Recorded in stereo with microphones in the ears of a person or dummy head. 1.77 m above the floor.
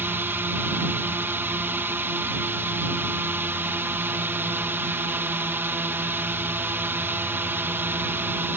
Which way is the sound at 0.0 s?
10° right (ahead or behind).